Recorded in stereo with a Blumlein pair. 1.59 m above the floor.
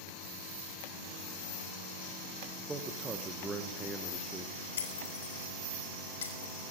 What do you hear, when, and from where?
2.6 s a man speaking: 15° right, 1.5 m
4.8 s breaking glass: 65° left, 4.5 m